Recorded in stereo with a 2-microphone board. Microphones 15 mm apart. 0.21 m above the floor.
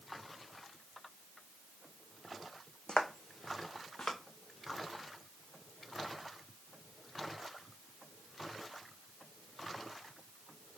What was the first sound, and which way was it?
Footsteps, 80° left.